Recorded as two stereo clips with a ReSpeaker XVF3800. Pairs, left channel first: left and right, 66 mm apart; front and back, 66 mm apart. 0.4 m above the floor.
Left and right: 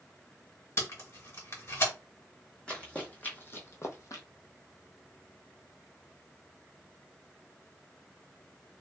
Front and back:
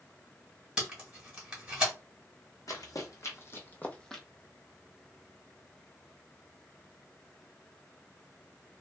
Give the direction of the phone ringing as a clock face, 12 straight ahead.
I don't hear a phone ringing.